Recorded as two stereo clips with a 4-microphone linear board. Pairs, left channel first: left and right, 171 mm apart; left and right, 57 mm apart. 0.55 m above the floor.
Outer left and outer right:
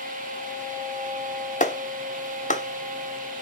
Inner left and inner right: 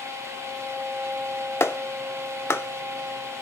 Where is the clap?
45° left (ahead or behind), 0.7 m.